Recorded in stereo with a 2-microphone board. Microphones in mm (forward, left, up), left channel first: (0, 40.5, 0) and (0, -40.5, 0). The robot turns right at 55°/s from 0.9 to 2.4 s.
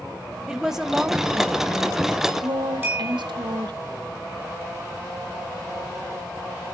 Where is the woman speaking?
175° right, 1.1 m; by 3.8 s 90° right, 1.1 m.